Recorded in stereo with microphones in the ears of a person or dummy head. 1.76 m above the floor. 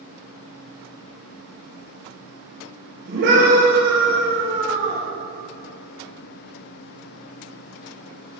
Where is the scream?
60° right (ahead or behind), 5.5 m.